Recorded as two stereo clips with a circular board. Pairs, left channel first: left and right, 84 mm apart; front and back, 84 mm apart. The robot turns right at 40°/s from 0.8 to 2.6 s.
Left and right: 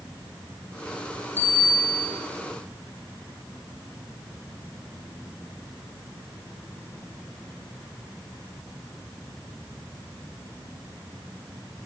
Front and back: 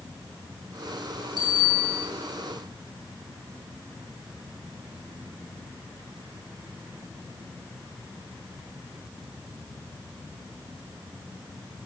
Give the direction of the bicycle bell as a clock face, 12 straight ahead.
1 o'clock.